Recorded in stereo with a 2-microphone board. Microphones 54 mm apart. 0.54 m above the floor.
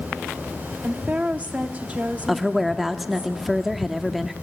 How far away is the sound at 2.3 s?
About 0.9 m.